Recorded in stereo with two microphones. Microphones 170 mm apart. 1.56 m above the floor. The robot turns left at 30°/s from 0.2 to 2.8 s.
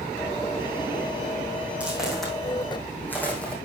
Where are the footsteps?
5° right (ahead or behind), 4 m; by 3.5 s 5° left (ahead or behind), 3 m.